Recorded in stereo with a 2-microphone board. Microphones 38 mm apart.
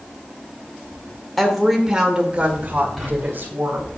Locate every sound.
1.4 s a woman speaking: 5° left (ahead or behind), 1.4 m; by 3.9 s 60° right (ahead or behind), 2.5 m
3.0 s whispering: 5° right (ahead or behind), 3.5 m